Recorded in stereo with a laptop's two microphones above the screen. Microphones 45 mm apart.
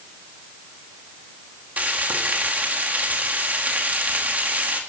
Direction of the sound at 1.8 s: 35° right (ahead or behind).